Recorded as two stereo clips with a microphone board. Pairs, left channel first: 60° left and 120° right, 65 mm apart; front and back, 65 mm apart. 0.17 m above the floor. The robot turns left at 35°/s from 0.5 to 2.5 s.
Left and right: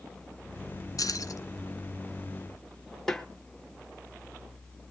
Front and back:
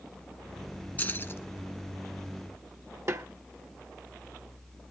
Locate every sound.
1.0 s keys jangling: 55° left, 2.0 m; by 1.4 s 40° left, 2.0 m
3.1 s a snare drum: 145° left, 1.3 m